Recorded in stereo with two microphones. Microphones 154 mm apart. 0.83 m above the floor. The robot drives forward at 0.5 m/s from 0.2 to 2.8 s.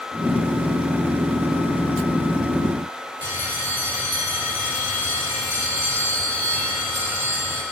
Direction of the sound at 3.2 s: 65° left (ahead or behind).